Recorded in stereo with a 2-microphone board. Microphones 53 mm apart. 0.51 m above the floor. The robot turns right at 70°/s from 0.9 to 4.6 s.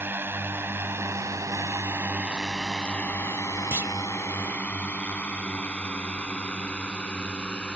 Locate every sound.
0.0 s a drone: 40° right (ahead or behind); by 7.8 s 20° left (ahead or behind)
3.7 s a clunk: 50° right (ahead or behind); by 3.9 s 35° right (ahead or behind)